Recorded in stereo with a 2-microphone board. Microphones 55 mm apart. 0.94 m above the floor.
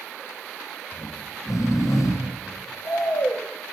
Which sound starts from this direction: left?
Snoring, at 0.9 s.